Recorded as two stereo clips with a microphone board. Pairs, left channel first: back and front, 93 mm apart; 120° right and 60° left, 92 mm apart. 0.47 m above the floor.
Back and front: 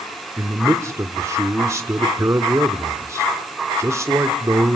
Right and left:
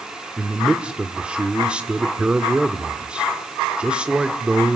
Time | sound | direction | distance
0.4 | a man speaking | 10° right | 1.4 m